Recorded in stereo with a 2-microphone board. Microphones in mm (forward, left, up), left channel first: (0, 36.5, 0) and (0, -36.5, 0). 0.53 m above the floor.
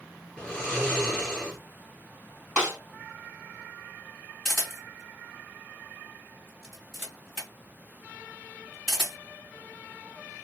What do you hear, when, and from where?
0.4 s snoring: 10° left (ahead or behind), 3 m
2.6 s a snare drum: 15° right (ahead or behind), 2.5 m
4.5 s a camera shutter: 5° left (ahead or behind), 2.5 m